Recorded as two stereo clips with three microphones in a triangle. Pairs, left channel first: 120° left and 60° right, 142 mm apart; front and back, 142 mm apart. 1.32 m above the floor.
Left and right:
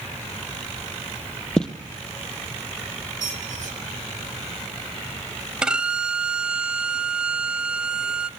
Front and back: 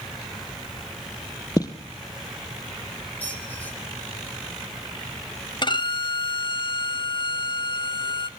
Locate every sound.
1.6 s footsteps: 40° left, 1.6 m
3.2 s a squeak: 75° right, 3 m
5.6 s a violin: 20° left, 0.6 m